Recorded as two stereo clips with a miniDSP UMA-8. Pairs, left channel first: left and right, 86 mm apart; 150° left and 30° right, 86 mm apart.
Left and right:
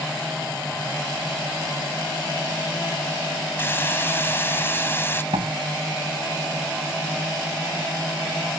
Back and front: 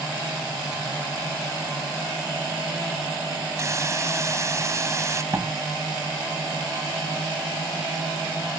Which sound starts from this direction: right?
A door slam, at 5.3 s.